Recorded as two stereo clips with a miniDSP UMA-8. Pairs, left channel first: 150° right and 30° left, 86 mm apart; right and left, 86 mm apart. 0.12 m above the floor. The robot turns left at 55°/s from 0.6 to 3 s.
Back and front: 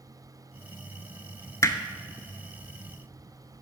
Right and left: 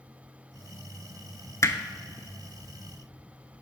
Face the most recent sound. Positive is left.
turn(degrees=165)